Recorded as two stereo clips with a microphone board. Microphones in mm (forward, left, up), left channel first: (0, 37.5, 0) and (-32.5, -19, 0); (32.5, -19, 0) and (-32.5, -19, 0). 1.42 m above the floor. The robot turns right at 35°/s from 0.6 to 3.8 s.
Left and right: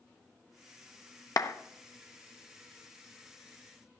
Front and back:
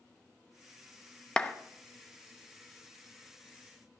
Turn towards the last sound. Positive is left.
turn(degrees=160)